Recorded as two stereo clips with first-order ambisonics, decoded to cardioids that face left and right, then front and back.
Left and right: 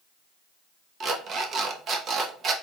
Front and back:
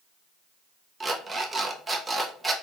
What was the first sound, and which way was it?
An alarm clock, 110° right.